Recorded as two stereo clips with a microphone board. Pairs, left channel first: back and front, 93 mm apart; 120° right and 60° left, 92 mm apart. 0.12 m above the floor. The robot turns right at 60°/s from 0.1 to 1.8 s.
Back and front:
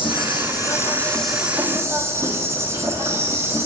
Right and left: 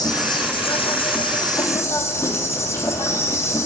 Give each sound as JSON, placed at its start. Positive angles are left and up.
{"t": 0.0, "sound": "an insect", "azimuth_deg": -160, "distance_m": 1.7}